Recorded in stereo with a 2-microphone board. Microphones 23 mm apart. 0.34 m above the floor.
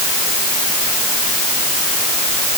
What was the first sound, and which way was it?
Only background noise.